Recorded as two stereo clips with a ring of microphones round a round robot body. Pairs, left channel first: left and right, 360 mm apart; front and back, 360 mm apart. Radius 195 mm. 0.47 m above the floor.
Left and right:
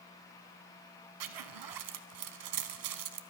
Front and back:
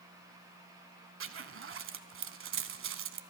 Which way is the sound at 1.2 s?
120° right.